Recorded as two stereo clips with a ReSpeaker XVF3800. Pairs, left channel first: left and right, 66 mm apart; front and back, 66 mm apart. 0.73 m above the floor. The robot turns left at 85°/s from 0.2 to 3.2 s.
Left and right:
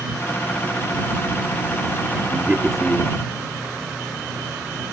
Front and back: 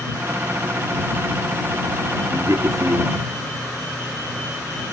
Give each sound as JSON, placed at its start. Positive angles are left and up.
{"t": 2.3, "sound": "a man speaking", "azimuth_deg": -145}